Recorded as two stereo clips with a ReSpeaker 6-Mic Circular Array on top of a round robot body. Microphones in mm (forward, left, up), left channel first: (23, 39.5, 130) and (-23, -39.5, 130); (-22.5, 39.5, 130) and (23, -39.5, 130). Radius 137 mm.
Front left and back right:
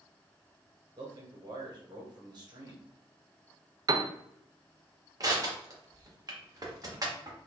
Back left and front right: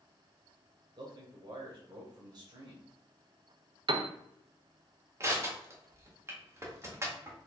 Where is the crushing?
100° right, 1.5 m.